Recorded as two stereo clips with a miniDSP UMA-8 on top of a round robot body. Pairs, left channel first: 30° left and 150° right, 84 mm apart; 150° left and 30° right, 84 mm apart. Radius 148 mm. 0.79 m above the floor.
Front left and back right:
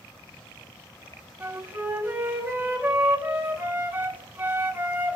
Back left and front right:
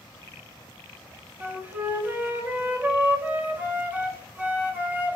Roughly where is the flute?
Right.